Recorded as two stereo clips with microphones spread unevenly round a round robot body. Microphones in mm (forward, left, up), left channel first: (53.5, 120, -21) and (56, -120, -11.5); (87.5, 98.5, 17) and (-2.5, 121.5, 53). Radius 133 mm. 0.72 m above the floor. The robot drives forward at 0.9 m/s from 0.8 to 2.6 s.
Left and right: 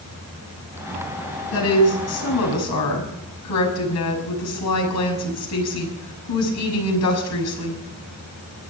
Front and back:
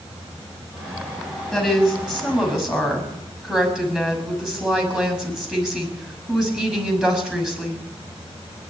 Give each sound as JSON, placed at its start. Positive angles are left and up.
{"t": 1.5, "sound": "a woman speaking", "azimuth_deg": 70, "distance_m": 6.5}